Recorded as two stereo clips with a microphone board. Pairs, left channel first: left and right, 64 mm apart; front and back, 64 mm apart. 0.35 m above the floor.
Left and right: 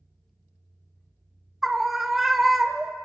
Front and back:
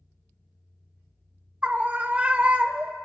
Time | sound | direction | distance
1.6 | a scream | 175° right | 1.0 m